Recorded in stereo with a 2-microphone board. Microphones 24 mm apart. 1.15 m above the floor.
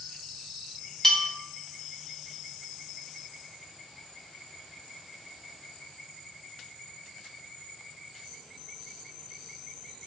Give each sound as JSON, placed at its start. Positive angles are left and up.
{"t": 1.0, "sound": "a bell", "side_deg": 15, "distance_m": 0.6}